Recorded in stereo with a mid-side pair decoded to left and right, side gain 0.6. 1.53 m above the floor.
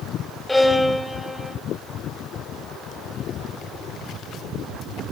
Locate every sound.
0.5 s a violin: 10° left, 4.5 m